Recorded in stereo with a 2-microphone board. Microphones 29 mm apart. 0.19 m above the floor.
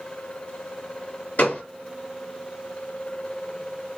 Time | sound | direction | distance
1.4 | a gunshot | 60° left (ahead or behind) | 2.5 m